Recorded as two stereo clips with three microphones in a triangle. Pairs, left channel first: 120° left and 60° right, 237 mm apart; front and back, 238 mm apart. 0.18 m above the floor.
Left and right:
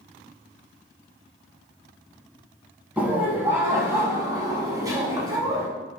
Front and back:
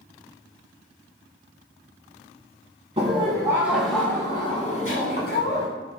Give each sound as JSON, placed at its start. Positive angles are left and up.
{"t": 3.0, "sound": "laughter", "azimuth_deg": -140, "distance_m": 1.2}